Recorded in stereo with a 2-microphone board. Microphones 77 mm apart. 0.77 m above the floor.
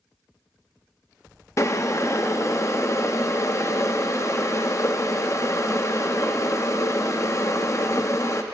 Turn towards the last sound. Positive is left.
turn(degrees=40)  # may be behind; listen again after turning